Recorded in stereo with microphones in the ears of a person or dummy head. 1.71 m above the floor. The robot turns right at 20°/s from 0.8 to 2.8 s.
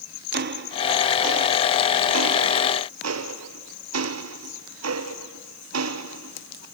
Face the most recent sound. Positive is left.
turn(degrees=-90)